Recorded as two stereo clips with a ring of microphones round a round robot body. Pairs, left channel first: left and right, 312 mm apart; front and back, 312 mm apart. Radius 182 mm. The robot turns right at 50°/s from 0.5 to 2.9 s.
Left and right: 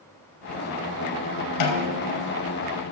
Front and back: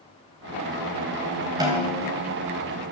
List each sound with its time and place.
1.6 s a snare drum: 100° left, 3 m; by 2.2 s 130° left, 3 m